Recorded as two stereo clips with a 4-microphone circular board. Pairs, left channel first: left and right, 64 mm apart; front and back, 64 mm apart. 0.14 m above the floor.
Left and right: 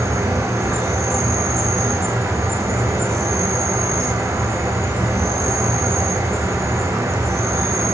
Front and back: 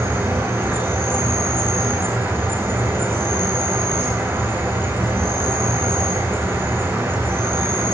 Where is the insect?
130° right, 7 m.